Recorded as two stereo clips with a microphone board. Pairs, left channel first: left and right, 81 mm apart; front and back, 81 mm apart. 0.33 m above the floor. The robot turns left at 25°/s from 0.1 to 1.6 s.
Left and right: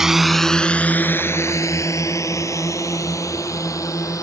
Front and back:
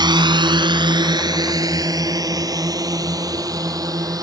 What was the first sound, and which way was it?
A drone, 175° right.